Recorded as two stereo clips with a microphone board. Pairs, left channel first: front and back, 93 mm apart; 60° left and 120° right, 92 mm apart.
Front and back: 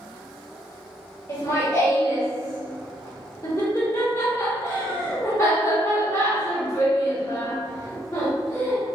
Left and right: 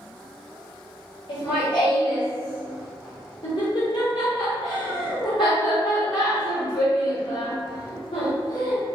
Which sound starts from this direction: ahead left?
Laughter, at 1.3 s.